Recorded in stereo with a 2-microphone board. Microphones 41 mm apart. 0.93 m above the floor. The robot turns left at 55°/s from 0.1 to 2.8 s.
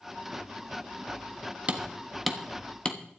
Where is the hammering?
35° right (ahead or behind), 1.2 m; by 3.0 s 25° left (ahead or behind), 1.2 m.